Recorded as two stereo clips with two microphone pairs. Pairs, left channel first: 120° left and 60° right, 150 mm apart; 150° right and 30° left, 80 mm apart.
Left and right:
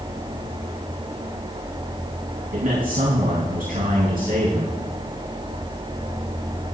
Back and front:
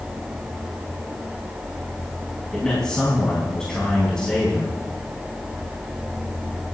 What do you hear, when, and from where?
2.5 s a man speaking: 75° right, 4 m